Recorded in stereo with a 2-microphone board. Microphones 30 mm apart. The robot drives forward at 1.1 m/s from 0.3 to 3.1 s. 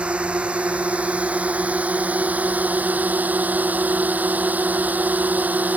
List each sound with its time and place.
0.0 s a drone: 40° right (ahead or behind); by 5.8 s 60° right (ahead or behind)